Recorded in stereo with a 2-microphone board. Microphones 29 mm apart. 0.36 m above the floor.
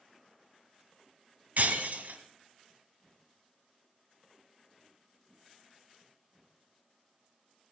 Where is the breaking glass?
65° right (ahead or behind), 1.4 m.